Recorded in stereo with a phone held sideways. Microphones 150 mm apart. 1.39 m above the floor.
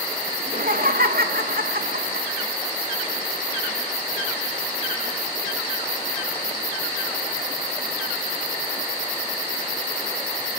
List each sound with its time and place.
0.4 s laughter: 65° right (ahead or behind), 2.5 m; by 2.3 s 80° right, 2 m